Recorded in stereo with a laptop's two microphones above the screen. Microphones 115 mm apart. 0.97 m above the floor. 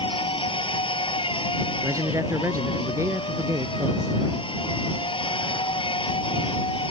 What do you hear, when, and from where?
0.0 s a machine running: 50° left (ahead or behind)
1.8 s a man speaking: 25° right (ahead or behind)